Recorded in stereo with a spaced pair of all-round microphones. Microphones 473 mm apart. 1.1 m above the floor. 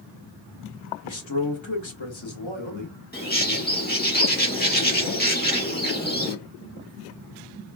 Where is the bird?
20° left (ahead or behind), 1.2 m.